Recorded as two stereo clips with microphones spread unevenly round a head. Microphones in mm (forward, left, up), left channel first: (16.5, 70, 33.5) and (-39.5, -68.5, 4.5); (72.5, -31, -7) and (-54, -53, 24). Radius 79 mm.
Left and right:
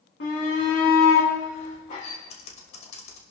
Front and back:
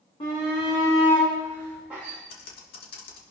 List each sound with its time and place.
0.2 s a shout: 75° left, 2.5 m; by 2.2 s 110° left, 2.5 m
2.3 s typing on a keyboard: 20° left, 2.5 m